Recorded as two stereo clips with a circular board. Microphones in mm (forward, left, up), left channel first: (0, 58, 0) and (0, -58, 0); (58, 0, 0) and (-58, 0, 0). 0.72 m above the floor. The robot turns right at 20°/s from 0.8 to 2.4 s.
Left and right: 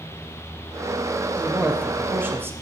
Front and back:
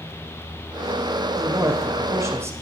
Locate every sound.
1.4 s a man speaking: 160° right, 0.5 m; by 2.5 s 140° right, 0.5 m